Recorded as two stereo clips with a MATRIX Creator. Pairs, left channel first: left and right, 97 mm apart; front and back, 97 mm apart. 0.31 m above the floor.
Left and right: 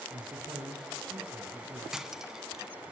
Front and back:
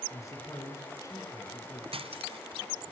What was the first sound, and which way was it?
A man speaking, 55° right.